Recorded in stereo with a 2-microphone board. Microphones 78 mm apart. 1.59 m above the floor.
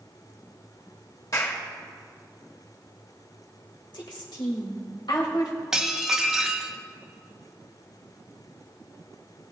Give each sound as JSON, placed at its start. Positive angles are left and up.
{"t": 1.3, "sound": "a clap", "side_deg": 45, "distance_m": 1.9}
{"t": 3.9, "sound": "a woman speaking", "side_deg": 80, "distance_m": 2.0}
{"t": 5.7, "sound": "dishes clattering", "side_deg": -10, "distance_m": 0.8}